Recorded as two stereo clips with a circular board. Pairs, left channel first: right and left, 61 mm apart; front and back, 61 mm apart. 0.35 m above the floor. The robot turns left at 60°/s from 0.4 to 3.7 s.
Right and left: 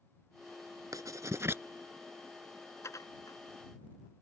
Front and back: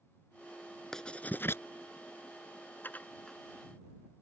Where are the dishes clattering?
55° right; by 3.4 s 85° right.